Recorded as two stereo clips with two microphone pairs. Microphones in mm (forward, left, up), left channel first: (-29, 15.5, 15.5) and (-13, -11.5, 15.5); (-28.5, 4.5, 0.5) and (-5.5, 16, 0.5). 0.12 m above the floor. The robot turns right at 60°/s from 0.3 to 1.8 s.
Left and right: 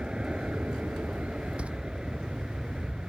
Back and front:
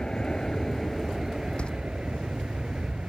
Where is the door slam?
110° right; by 1.7 s 105° right.